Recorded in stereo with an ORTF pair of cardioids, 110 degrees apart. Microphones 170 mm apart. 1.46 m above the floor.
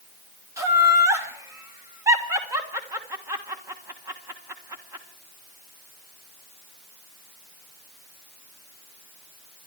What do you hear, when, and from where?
0.6 s laughter: 20° right, 1.4 m